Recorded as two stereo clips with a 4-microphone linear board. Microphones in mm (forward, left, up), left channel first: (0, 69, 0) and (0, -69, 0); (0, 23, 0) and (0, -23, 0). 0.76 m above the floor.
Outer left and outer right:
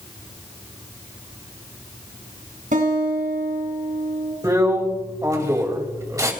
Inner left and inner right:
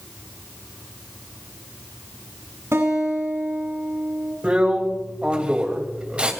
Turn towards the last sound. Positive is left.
turn(degrees=-25)  # may be behind; listen again after turning